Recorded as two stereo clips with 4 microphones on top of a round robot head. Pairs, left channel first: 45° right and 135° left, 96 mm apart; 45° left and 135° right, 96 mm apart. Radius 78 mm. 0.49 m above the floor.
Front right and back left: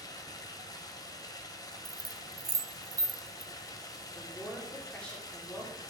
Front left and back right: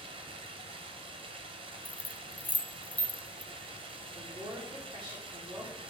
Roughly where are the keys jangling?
Behind left.